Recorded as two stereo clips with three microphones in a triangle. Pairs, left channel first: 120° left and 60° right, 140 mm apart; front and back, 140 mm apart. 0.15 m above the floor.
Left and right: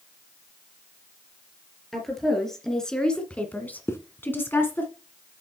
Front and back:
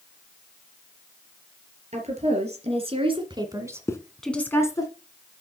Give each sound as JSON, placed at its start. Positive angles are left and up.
{"t": 1.9, "sound": "a woman speaking", "azimuth_deg": -150, "distance_m": 3.0}
{"t": 3.9, "sound": "a zipper", "azimuth_deg": 60, "distance_m": 1.0}